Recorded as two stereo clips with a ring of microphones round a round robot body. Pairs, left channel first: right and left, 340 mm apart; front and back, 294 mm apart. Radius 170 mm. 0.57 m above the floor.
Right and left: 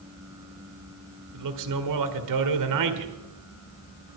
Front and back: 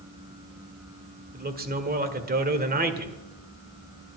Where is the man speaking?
120° left, 1.9 m.